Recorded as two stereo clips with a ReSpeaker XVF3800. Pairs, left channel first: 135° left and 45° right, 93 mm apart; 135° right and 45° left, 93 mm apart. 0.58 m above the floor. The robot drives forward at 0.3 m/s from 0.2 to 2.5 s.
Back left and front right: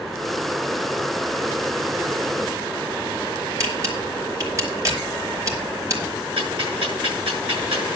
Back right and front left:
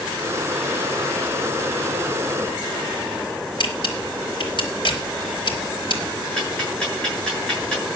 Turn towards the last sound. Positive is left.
turn(degrees=-55)